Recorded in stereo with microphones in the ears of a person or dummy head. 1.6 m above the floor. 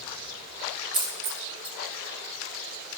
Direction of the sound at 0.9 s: 45° right (ahead or behind).